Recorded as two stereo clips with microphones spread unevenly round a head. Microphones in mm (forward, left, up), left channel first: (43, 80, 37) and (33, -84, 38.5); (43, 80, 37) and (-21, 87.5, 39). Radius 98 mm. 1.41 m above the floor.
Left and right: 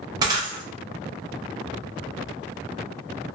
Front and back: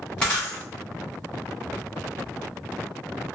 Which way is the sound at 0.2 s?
70° right.